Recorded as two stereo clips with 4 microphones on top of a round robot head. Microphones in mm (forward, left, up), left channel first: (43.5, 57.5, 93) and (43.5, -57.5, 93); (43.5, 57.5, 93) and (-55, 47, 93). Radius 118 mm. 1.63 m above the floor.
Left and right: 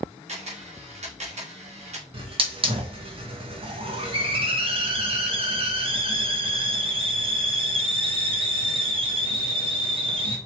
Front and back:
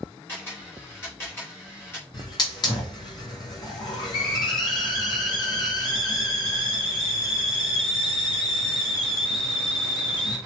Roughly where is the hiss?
Ahead right.